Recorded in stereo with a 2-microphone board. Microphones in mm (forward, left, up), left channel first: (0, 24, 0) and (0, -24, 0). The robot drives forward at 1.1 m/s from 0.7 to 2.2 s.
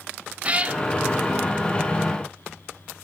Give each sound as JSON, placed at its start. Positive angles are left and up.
{"t": 0.4, "sound": "a cat meowing", "side_deg": -30, "distance_m": 0.5}